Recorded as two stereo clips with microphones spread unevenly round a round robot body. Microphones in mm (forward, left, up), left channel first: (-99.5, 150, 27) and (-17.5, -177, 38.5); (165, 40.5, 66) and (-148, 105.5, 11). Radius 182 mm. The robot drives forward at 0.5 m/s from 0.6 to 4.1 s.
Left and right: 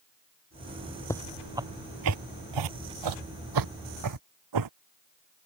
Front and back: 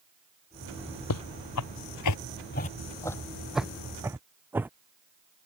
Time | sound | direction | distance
1.1 | footsteps | 20° left | ?